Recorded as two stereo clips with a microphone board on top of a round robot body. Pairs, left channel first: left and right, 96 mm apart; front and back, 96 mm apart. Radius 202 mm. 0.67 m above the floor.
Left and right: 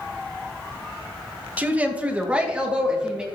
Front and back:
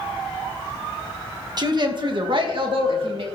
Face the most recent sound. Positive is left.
turn(degrees=-170)